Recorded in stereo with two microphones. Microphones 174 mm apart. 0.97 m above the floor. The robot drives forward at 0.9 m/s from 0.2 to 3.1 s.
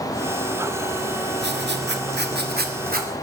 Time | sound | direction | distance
1.4 | writing | 75° right (ahead or behind) | 1.7 m